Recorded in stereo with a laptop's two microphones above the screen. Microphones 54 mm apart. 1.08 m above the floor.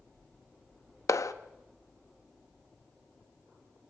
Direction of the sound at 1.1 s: 80° left.